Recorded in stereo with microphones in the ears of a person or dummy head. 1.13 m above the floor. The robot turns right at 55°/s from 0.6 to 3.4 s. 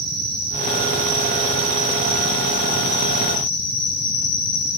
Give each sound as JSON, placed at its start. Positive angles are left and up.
{"t": 0.0, "sound": "an insect", "azimuth_deg": -105, "distance_m": 4.0}